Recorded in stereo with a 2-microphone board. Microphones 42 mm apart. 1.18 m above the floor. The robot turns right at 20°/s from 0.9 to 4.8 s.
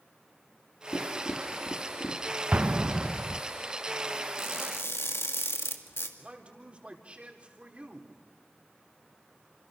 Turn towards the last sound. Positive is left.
turn(degrees=-30)  # may be behind; listen again after turning